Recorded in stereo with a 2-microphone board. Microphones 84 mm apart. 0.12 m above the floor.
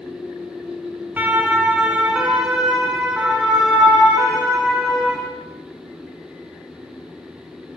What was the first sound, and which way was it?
A siren, 20° right (ahead or behind).